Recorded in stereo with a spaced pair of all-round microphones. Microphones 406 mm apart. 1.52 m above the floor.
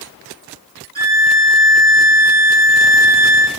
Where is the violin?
20° right (ahead or behind), 5.5 m.